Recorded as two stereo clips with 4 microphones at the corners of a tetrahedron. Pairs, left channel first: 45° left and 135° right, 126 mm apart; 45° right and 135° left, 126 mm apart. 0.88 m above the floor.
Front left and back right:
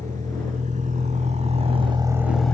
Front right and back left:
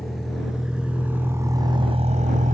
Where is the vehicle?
135° right; by 2.5 s 125° left.